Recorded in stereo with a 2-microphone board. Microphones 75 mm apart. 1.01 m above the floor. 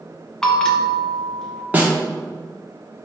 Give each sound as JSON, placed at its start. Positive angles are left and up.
{"t": 0.4, "sound": "a bell", "side_deg": 10, "distance_m": 0.6}
{"t": 1.7, "sound": "a snare drum", "side_deg": -20, "distance_m": 0.8}